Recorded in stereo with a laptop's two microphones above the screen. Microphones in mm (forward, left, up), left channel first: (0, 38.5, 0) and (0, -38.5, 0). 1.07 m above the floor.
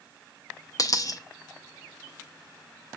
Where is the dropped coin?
50° left (ahead or behind), 0.5 m.